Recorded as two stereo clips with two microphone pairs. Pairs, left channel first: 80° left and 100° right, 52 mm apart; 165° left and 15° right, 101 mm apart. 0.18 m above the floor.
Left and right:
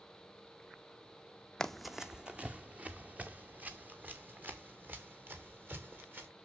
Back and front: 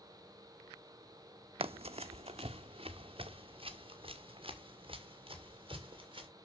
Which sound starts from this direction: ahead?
Running footsteps, at 1.6 s.